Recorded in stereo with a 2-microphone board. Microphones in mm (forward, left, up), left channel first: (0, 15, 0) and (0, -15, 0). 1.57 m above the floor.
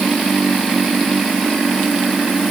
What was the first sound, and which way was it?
Only background noise.